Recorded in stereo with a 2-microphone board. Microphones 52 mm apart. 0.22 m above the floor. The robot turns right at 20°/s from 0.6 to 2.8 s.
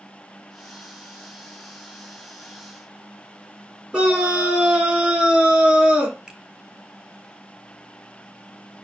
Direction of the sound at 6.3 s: 20° right (ahead or behind).